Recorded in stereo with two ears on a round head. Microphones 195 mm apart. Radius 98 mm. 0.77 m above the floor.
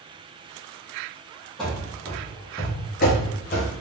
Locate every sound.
1.6 s running footsteps: 5° left (ahead or behind), 1.7 m; by 3.7 s 40° left (ahead or behind), 1.3 m